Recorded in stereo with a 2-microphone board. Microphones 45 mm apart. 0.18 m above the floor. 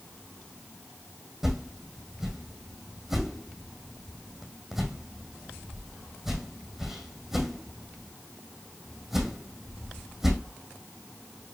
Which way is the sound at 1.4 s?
5° right (ahead or behind).